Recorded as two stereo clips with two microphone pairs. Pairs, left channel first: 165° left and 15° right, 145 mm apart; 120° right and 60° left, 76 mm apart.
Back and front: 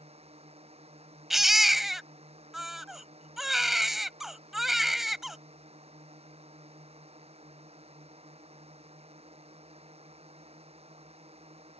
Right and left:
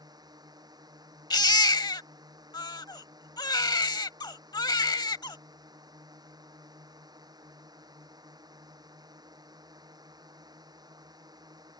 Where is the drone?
35° left.